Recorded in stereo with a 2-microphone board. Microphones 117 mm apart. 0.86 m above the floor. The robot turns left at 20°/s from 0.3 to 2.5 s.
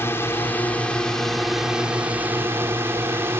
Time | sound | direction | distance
0.0 | a drone | 25° left | ?